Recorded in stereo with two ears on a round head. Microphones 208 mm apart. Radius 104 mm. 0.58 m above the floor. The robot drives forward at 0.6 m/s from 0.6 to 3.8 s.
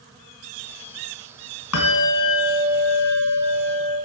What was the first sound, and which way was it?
A bell, 70° left (ahead or behind).